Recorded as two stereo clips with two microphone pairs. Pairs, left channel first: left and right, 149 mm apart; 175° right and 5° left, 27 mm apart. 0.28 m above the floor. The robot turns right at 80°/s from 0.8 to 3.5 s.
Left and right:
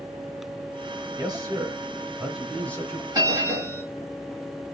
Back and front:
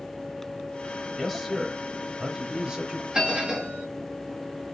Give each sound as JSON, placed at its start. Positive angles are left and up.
{"t": 1.2, "sound": "a man speaking", "azimuth_deg": -100, "distance_m": 1.0}
{"t": 3.1, "sound": "a bell", "azimuth_deg": -55, "distance_m": 1.6}